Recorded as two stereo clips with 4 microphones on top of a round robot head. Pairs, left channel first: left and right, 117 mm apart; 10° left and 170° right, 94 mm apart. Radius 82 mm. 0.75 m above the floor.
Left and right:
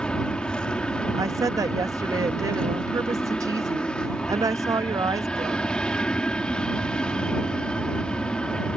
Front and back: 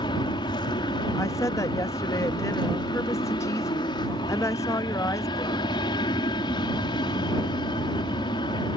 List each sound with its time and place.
0.0 s an aircraft: 10° left
1.1 s a woman speaking: 40° right